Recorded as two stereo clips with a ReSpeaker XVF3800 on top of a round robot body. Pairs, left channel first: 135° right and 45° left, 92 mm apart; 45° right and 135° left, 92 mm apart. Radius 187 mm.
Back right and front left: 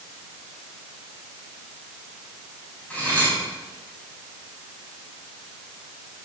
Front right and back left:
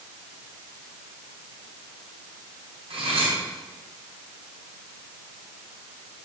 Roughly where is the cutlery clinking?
Behind left.